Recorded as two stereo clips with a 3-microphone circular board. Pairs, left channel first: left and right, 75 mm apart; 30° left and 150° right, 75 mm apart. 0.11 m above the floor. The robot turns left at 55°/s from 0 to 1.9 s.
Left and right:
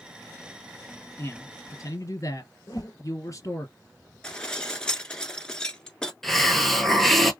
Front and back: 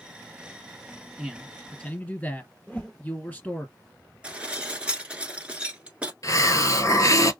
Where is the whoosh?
95° left, 1.0 m.